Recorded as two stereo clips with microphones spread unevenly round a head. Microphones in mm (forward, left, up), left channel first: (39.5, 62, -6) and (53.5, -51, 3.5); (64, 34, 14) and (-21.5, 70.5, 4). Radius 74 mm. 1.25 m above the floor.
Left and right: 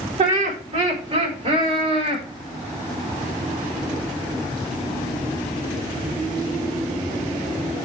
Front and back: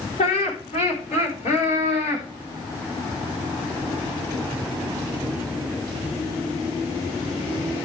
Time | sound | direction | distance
0.2 | laughter | 55° right | 4 m